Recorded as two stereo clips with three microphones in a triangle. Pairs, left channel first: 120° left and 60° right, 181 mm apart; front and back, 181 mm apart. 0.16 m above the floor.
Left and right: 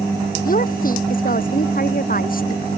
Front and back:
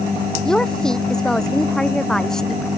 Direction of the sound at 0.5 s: 85° left.